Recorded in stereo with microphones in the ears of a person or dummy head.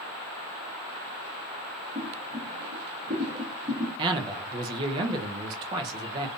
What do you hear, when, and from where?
1.9 s boiling: 10° right (ahead or behind), 0.7 m
4.0 s a man speaking: 30° right (ahead or behind), 0.6 m